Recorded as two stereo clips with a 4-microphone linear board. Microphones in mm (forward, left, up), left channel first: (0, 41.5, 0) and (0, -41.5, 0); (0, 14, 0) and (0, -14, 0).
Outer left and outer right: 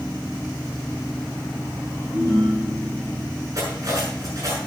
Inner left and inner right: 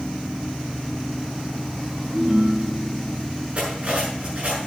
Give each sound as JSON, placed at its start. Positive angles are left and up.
{"t": 2.1, "sound": "a ringtone", "side_deg": -55, "distance_m": 3.5}
{"t": 3.5, "sound": "cutlery clinking", "side_deg": -45, "distance_m": 7.0}